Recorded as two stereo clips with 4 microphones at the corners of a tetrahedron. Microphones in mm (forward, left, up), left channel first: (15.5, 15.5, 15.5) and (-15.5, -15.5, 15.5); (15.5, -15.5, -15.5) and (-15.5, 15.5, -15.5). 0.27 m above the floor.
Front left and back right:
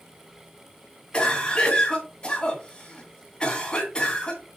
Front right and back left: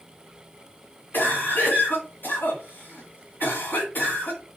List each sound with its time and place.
1.1 s a cough: 20° right, 1.9 m